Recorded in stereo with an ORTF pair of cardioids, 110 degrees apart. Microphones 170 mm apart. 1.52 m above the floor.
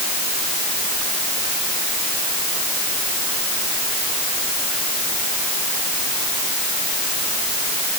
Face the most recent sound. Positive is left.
No sound to turn to.